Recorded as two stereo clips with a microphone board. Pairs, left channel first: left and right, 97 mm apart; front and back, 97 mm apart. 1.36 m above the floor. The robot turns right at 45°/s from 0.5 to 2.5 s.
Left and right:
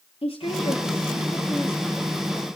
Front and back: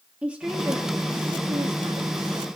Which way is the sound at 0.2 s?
105° left.